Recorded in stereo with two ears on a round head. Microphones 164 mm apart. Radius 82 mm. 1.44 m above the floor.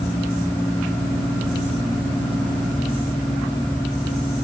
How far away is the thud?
I don't hear a thud.